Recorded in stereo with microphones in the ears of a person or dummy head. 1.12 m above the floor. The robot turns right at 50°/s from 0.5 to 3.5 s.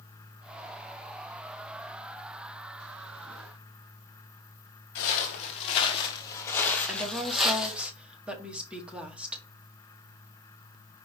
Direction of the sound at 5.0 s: 50° left (ahead or behind).